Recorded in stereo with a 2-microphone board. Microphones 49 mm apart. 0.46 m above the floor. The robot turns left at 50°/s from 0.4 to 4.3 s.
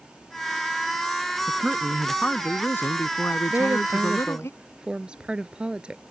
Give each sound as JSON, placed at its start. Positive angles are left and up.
{"t": 1.5, "sound": "a man speaking", "azimuth_deg": -160}
{"t": 3.5, "sound": "a woman speaking", "azimuth_deg": -120}